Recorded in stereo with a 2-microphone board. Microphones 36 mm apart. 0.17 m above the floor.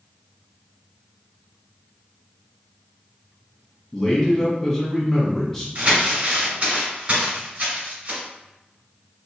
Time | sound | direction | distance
3.9 | a man speaking | 5° left (ahead or behind) | 1.1 m
5.8 | crumpling | 35° right (ahead or behind) | 2.0 m